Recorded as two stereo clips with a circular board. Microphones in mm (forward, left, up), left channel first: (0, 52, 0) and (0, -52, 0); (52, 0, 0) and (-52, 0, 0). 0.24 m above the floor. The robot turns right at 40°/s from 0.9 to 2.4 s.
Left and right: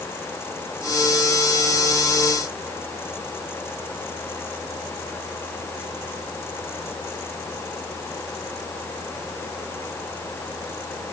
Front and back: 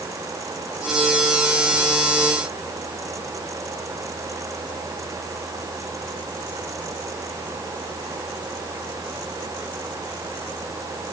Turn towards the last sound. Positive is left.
No sound to turn to.